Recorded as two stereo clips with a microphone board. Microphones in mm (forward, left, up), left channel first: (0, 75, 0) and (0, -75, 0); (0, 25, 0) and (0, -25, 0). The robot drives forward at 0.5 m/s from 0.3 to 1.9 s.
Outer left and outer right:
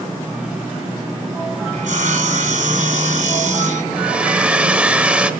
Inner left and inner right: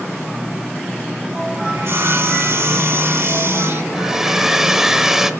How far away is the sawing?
About 1.3 m.